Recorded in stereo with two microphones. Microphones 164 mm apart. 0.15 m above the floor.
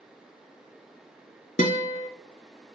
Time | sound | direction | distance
1.6 | a guitar | 50° left (ahead or behind) | 0.7 m